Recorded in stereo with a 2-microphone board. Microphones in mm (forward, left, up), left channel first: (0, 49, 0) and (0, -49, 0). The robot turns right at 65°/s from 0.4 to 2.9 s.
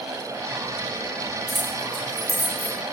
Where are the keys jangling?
35° right (ahead or behind), 7 m; by 2.8 s 60° right (ahead or behind), 7 m.